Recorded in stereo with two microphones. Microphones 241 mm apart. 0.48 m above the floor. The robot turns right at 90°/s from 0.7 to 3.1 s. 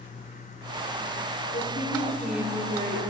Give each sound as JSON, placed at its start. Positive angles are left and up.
{"t": 1.5, "sound": "a woman speaking", "azimuth_deg": 110, "distance_m": 1.0}